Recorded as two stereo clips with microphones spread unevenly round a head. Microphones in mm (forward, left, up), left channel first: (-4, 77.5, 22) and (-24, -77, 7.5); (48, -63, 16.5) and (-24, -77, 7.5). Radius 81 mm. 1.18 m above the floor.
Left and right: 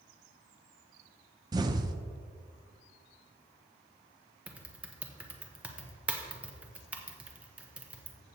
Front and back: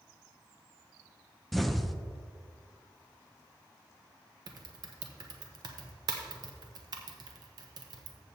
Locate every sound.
1.5 s an explosion: 90° right, 0.6 m
4.5 s typing on a keyboard: 175° right, 1.0 m